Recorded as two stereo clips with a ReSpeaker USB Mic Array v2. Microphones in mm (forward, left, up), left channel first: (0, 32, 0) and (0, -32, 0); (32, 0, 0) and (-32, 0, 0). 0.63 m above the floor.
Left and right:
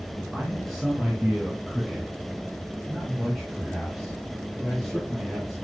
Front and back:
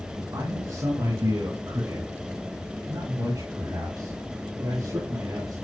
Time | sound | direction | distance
0.3 | a man speaking | straight behind | 7 m